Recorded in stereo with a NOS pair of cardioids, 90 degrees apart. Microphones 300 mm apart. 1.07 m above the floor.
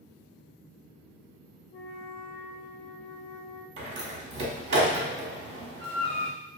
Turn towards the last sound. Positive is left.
turn(degrees=-45)